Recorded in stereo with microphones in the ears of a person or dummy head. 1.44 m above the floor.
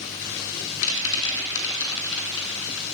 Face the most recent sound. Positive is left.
turn(degrees=70)  # may be behind; listen again after turning